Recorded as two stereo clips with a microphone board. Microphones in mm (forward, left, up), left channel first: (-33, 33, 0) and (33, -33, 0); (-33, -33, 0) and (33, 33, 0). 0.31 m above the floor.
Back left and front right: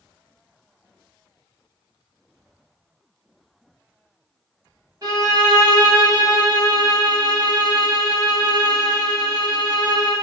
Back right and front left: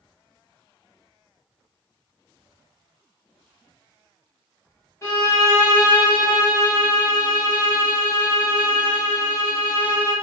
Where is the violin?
90° right, 1.7 m.